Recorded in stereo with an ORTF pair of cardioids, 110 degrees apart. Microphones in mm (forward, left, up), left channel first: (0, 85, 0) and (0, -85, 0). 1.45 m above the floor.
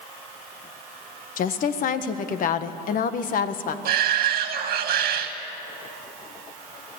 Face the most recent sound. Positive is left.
turn(degrees=-65)